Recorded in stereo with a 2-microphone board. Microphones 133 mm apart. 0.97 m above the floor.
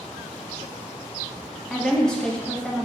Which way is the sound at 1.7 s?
5° left (ahead or behind).